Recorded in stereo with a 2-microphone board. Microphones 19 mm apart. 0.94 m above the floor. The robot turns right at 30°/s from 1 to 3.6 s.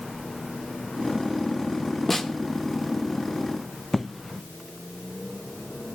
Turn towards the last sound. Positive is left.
turn(degrees=10)  # may be behind; listen again after turning